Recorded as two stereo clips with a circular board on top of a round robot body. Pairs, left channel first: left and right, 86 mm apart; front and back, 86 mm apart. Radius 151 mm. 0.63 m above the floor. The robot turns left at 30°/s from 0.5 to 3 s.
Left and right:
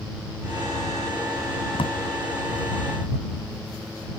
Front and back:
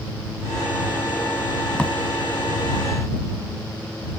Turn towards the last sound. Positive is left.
turn(degrees=45)